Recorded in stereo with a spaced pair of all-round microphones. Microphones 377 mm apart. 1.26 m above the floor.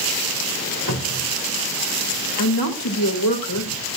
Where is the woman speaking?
70° left (ahead or behind), 3.5 m.